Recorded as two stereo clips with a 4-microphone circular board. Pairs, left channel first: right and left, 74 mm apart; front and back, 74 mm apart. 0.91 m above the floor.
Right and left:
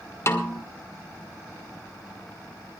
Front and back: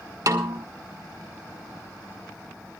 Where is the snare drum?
140° right, 1.9 m.